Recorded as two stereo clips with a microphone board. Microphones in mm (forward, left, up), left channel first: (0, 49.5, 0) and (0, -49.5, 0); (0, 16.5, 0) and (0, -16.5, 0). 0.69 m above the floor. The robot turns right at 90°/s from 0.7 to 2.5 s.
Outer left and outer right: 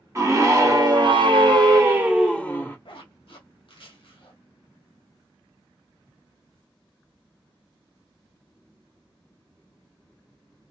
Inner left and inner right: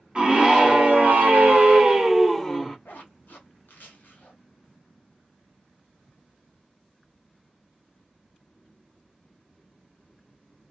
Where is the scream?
140° right, 1.2 m; by 2.8 s 20° left, 1.2 m.